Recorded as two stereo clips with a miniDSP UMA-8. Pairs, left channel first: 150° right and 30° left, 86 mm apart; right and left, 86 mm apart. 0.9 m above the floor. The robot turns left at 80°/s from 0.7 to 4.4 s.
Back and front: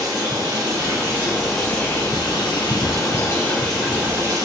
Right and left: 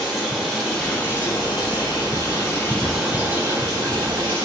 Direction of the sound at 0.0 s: Straight ahead.